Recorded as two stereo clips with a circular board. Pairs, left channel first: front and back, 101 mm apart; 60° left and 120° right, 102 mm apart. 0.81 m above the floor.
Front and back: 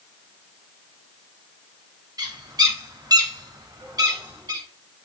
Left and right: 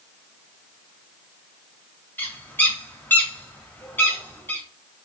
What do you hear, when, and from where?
2.2 s a bird: 130° left, 1.1 m